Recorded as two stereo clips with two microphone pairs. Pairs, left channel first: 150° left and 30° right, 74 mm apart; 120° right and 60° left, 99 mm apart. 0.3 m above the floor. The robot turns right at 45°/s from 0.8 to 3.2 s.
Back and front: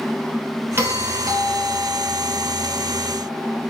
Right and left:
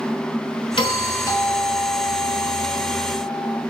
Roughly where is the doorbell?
Right.